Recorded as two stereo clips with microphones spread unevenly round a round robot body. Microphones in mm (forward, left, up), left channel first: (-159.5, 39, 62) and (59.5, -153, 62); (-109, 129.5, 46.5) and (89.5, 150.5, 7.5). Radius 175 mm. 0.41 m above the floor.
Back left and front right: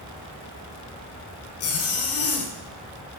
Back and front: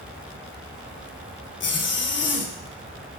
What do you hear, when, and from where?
1.6 s a zipper: 165° left, 1.4 m